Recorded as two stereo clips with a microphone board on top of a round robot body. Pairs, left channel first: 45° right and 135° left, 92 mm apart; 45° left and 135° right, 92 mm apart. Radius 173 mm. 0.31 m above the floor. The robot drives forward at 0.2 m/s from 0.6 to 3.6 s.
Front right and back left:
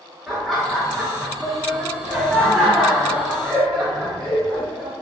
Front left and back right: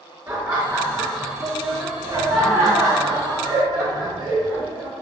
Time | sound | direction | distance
0.3 | laughter | 135° right | 1.6 m